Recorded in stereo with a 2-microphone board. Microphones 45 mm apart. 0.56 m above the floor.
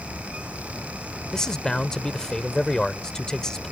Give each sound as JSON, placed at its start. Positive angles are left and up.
{"t": 1.3, "sound": "a man speaking", "side_deg": 15}